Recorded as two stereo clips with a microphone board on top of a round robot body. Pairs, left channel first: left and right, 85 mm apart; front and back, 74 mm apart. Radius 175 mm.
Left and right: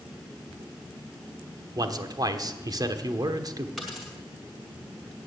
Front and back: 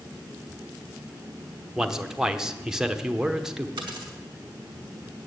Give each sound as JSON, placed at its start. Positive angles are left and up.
{"t": 1.8, "sound": "a man speaking", "azimuth_deg": -100, "distance_m": 1.1}
{"t": 3.8, "sound": "a dropped coin", "azimuth_deg": 175, "distance_m": 0.6}